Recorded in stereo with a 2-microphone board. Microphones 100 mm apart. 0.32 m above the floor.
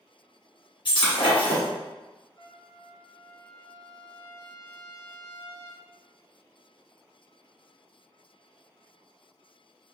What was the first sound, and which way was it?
Breaking glass, 55° left (ahead or behind).